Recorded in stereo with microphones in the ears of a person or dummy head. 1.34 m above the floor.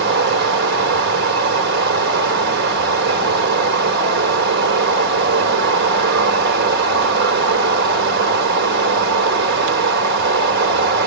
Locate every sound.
0.0 s running water: 55° right (ahead or behind), 1.4 m